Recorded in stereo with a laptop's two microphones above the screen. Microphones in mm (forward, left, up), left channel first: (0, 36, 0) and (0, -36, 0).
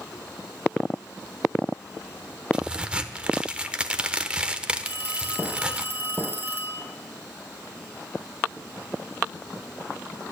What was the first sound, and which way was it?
A crack, 15° right (ahead or behind).